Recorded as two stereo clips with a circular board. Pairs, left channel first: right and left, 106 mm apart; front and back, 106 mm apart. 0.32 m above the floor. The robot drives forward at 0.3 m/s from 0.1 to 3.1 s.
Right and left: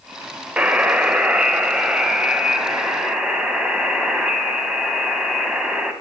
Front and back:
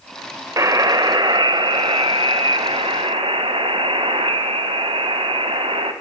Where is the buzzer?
160° left, 0.5 m; by 5.9 s 175° left, 1.1 m.